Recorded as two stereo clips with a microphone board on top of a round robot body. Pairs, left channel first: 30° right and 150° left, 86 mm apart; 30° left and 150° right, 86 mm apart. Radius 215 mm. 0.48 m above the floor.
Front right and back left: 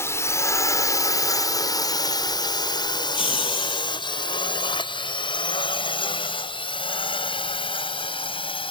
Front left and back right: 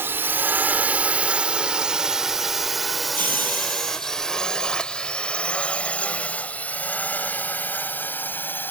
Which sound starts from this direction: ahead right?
Laughter, at 3.0 s.